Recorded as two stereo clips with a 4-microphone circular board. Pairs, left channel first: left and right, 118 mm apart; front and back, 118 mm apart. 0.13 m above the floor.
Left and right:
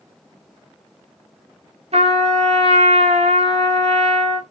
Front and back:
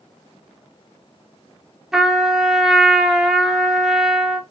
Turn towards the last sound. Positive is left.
turn(degrees=-95)